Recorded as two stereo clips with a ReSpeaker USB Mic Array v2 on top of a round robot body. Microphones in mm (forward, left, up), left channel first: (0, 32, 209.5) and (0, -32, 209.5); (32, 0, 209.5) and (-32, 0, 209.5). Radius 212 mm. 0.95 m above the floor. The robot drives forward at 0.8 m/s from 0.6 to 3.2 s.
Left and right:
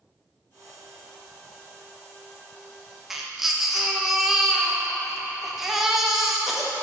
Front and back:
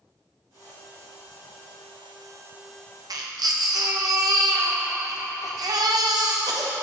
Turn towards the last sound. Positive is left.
turn(degrees=-175)